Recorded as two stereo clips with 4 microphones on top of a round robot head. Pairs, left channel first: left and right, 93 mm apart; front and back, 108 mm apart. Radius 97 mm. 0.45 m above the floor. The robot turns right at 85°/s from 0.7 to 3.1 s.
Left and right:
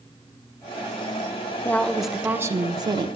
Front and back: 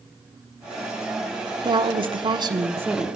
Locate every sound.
1.6 s a woman speaking: 145° left, 1.0 m; by 3.1 s 90° right, 1.0 m